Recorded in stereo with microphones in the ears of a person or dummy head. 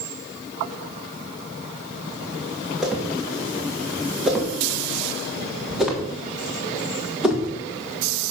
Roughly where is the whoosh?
Centre.